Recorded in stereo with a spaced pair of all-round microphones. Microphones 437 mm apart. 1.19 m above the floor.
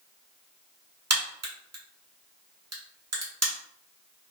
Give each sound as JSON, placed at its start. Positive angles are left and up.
{"t": 1.1, "sound": "a crack", "side_deg": -35, "distance_m": 0.9}